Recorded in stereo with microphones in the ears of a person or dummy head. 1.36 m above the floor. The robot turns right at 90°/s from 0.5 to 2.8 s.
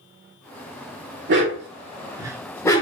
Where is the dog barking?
55° right (ahead or behind), 1.6 m; by 2.8 s 25° left (ahead or behind), 1.6 m.